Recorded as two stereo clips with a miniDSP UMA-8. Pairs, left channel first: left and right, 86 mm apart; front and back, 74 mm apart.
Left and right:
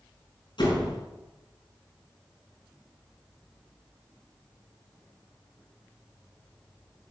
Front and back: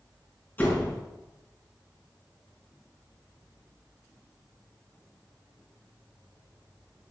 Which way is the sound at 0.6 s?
65° left.